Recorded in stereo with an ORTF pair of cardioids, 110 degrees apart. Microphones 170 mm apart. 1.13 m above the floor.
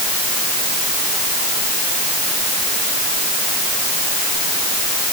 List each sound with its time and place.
Only background noise.